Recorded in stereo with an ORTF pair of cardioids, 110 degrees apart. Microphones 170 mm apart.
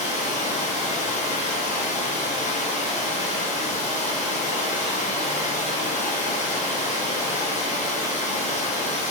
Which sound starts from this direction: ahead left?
Running water, at 0.0 s.